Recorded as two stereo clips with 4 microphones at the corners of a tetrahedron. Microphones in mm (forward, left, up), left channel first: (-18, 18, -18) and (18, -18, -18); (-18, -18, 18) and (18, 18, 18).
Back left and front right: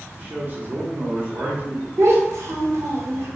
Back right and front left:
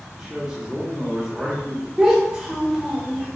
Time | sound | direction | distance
0.1 | a man speaking | 30° right | 0.7 m
2.0 | a child speaking | 30° right | 0.7 m